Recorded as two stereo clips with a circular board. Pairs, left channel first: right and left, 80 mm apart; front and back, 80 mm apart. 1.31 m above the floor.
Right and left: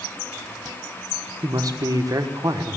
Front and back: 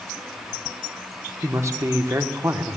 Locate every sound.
1.4 s a man speaking: 130° left, 1.2 m